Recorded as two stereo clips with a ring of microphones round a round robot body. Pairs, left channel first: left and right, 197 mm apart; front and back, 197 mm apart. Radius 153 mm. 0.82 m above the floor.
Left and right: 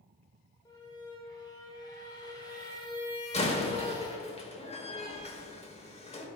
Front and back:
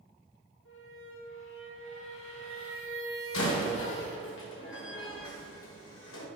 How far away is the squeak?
About 2.5 m.